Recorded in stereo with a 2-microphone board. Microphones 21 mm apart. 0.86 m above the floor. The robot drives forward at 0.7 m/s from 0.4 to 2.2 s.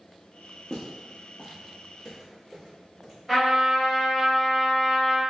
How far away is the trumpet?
About 1.9 m.